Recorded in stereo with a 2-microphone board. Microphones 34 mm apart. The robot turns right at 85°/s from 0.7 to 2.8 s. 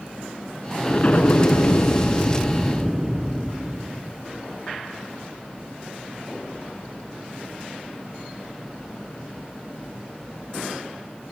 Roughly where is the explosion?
Ahead.